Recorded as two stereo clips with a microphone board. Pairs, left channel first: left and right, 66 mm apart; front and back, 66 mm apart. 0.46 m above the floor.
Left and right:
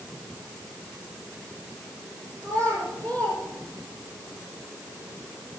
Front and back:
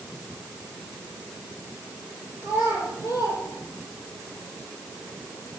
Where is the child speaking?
30° left, 7 m; by 4.2 s 25° left, 6 m.